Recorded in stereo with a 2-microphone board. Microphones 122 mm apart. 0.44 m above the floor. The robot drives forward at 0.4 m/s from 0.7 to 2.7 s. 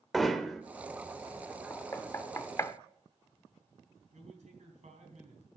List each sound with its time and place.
0.1 s hammering: centre (ahead or behind), 1.0 m
1.7 s knocking: 20° left (ahead or behind), 0.7 m; by 2.8 s 25° left (ahead or behind), 0.6 m
4.1 s a man speaking: 70° right (ahead or behind), 3.5 m